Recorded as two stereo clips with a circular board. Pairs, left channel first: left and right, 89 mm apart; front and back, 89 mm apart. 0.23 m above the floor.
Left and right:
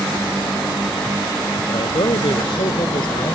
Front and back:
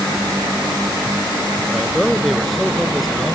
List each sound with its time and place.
1.7 s a man speaking: 90° left